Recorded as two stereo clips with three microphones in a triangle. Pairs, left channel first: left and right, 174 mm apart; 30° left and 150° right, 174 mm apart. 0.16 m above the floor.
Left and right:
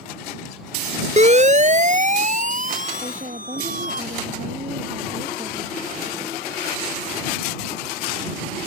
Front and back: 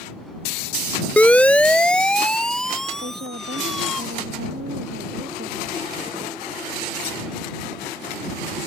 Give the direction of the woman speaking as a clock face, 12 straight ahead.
5 o'clock.